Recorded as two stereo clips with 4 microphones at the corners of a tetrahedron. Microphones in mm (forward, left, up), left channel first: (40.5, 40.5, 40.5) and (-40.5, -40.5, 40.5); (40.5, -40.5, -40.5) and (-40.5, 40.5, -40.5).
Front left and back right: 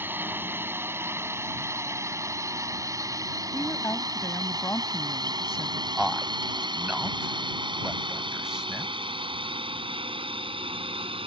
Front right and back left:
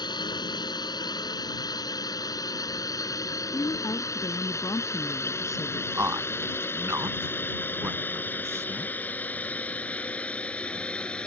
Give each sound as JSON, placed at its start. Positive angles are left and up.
{"t": 0.0, "sound": "a drone", "azimuth_deg": -70}
{"t": 3.5, "sound": "a woman speaking", "azimuth_deg": -5}
{"t": 6.0, "sound": "a man speaking", "azimuth_deg": 150}